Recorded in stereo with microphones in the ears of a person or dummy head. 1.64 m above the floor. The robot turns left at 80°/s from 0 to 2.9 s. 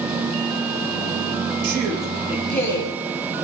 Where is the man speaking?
115° right, 1.9 m; by 2.9 s 140° left, 1.9 m.